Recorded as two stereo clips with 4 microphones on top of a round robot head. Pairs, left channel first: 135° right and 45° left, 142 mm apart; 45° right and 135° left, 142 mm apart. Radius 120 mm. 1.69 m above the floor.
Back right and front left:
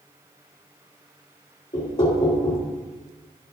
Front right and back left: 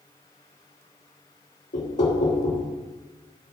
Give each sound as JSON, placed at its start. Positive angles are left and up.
{"t": 1.7, "sound": "knocking", "azimuth_deg": -85, "distance_m": 1.6}